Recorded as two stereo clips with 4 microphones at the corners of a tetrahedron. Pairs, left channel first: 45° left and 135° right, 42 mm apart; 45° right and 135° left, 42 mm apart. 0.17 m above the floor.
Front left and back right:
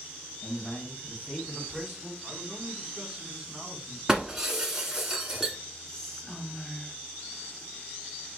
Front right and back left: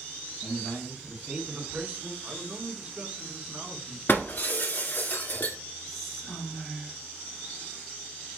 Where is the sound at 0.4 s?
60° left, 1.2 m; by 2.1 s 165° left, 1.4 m.